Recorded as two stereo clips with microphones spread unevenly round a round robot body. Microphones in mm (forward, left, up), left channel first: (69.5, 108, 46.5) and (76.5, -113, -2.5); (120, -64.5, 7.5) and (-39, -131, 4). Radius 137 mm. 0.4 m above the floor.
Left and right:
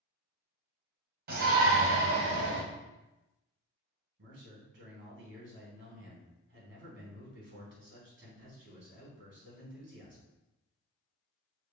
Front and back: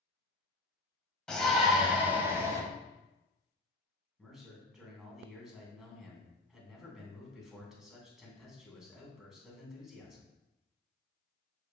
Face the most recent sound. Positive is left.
turn(degrees=-70)